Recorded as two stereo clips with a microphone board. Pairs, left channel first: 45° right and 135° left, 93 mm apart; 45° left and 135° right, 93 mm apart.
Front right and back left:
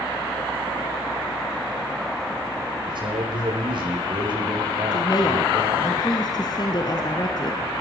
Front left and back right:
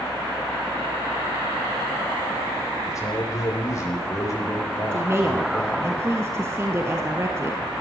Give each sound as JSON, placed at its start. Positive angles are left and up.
{"t": 2.9, "sound": "a man speaking", "azimuth_deg": 100, "distance_m": 8.5}
{"t": 4.9, "sound": "a woman speaking", "azimuth_deg": -75, "distance_m": 2.0}